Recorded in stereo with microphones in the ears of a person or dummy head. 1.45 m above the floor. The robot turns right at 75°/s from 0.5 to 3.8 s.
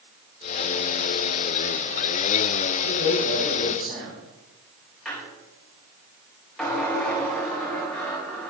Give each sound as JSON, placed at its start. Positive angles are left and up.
{"t": 2.8, "sound": "a man speaking", "azimuth_deg": 135, "distance_m": 5.0}
{"t": 5.0, "sound": "a squeak", "side_deg": 0, "distance_m": 4.0}